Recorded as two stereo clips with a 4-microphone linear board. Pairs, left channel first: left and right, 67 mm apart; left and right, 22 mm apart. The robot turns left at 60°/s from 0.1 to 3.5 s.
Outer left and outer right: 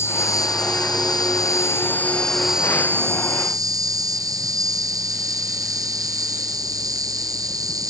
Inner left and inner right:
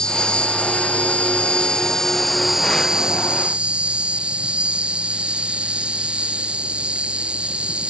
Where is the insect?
140° left; by 7.9 s 65° right.